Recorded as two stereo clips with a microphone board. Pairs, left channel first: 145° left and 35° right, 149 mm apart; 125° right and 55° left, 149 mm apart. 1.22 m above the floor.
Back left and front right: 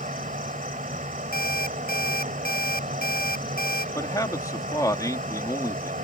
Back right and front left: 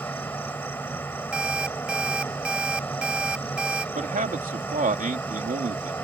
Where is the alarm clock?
140° left.